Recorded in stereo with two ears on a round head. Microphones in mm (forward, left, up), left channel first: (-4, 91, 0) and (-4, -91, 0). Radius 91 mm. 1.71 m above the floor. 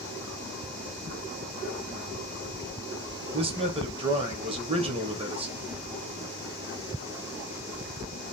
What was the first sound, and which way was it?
A man speaking, 30° right (ahead or behind).